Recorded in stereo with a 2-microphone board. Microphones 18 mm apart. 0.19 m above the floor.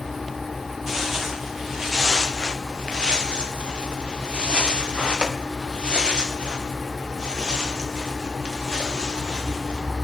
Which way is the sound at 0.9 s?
15° right (ahead or behind).